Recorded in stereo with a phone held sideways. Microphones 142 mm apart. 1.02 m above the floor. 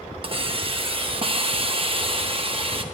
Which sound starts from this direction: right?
A hiss, at 0.2 s.